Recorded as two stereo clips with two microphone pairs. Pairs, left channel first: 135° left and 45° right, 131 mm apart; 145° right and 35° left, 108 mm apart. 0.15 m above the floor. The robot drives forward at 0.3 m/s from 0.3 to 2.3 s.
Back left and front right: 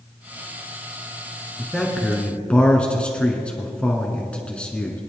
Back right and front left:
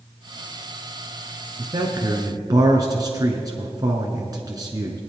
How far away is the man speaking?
About 1.5 m.